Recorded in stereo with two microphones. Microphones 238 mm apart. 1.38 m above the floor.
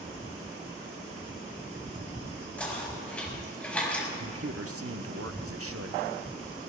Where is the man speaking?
70° right (ahead or behind), 0.8 m.